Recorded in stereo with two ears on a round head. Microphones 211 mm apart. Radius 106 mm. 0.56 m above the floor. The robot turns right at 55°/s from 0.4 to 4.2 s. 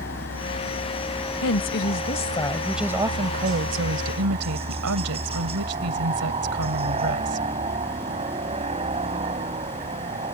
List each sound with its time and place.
0.0 s a helicopter: 125° left; by 10.3 s 25° right
1.4 s a woman speaking: 110° left; by 7.5 s 100° right